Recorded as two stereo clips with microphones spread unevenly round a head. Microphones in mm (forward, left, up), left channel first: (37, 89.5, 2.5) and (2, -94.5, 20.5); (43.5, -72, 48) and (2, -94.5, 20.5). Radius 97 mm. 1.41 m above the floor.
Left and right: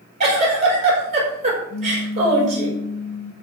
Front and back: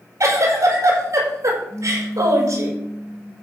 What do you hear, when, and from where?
0.2 s a giggle: 155° right, 6 m
1.7 s a pop: 60° left, 0.8 m